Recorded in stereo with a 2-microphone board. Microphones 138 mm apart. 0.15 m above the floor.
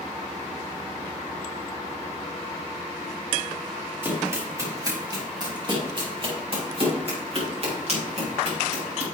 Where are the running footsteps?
15° right (ahead or behind), 4.5 m; by 9.1 s 55° right (ahead or behind), 8 m.